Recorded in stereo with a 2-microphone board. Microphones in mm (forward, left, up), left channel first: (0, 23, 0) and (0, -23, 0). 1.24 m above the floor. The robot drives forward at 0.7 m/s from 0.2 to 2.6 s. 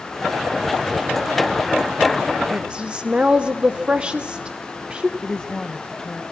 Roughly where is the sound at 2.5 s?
Right.